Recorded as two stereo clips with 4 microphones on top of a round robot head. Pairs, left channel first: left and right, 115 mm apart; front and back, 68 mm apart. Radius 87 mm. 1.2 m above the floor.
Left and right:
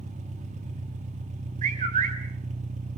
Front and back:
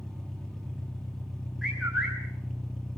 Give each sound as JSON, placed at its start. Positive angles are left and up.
{"t": 0.0, "sound": "an engine running", "azimuth_deg": -85, "distance_m": 2.5}
{"t": 1.6, "sound": "a bird", "azimuth_deg": -90, "distance_m": 3.5}